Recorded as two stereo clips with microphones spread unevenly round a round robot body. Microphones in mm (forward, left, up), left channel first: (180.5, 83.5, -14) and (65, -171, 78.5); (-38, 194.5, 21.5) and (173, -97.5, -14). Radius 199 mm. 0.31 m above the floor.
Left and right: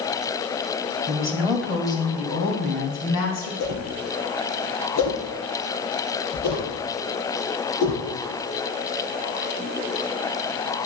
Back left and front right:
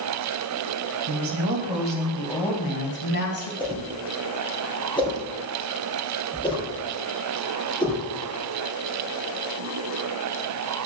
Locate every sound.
1.1 s a woman speaking: 30° right, 2 m; by 3.5 s 80° left, 3 m
3.6 s a whoosh: 50° left, 3.5 m